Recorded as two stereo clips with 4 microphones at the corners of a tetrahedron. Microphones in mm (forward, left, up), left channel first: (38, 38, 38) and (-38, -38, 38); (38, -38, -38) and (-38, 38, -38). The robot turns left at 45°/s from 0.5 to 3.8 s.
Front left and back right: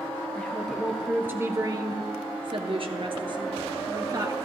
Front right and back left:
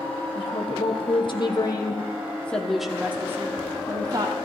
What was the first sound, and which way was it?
A woman speaking, 35° right.